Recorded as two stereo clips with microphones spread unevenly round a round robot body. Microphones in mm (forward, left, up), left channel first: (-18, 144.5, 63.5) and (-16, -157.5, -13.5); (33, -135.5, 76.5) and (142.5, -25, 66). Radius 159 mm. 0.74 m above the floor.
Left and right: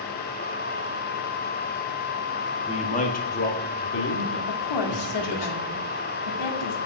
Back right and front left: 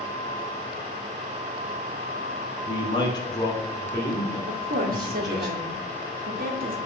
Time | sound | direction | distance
2.7 | a man speaking | 170° left | 1.5 m
4.5 | a woman speaking | 70° left | 1.9 m